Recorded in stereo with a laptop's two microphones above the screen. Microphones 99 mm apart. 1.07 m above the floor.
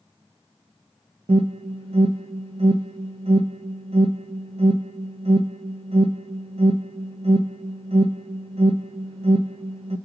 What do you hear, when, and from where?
1.3 s an alarm: 75° right (ahead or behind), 0.6 m